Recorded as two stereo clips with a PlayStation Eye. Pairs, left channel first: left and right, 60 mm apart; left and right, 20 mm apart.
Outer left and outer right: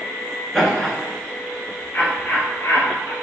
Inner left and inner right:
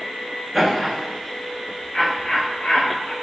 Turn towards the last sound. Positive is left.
turn(degrees=55)  # may be behind; listen again after turning